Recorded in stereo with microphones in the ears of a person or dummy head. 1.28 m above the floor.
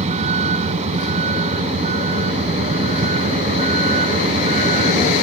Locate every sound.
0.0 s a vehicle: 35° right (ahead or behind)